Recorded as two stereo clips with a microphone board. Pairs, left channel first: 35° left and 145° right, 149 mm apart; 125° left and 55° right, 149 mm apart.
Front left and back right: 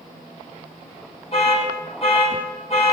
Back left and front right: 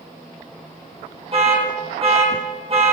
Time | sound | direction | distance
1.3 | an alarm | 10° right | 4 m